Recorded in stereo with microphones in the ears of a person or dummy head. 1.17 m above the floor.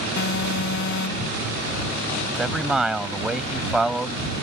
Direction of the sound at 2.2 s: Centre (ahead or behind).